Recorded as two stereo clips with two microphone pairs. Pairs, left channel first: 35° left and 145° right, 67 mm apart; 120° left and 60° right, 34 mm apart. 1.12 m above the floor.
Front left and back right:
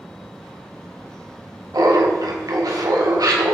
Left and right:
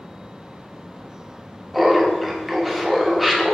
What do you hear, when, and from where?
1.7 s laughter: 150° right, 1.2 m